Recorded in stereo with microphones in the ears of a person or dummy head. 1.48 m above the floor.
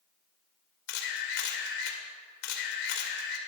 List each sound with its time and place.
0.9 s a camera shutter: 70° left (ahead or behind), 2.5 m